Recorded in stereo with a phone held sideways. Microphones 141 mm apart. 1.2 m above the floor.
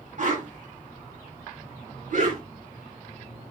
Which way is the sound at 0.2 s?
60° right (ahead or behind).